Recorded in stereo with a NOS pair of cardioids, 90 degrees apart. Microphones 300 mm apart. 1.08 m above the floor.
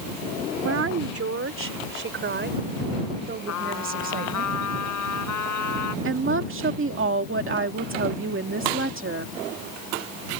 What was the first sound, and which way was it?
A woman speaking, 55° right.